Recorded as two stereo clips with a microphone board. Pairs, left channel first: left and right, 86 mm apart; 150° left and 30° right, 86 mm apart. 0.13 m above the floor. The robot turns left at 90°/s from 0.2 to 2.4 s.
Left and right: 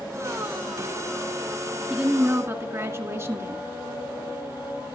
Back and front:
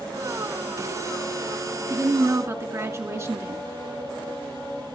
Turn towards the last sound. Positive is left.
turn(degrees=-60)